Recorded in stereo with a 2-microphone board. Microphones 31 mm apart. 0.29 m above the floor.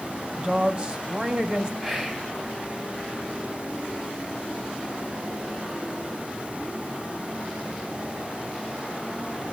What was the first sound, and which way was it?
A woman speaking, 30° right (ahead or behind).